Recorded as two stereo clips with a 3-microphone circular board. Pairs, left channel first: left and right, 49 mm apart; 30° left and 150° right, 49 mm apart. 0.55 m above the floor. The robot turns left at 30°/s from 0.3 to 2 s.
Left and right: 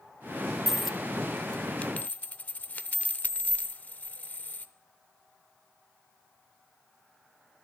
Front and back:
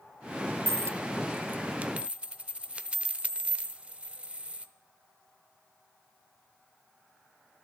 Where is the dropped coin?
175° right, 0.5 m; by 4.7 s 145° left, 0.5 m.